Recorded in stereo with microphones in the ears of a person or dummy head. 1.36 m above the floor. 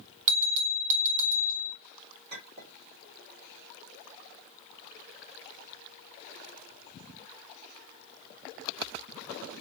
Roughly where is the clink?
Right.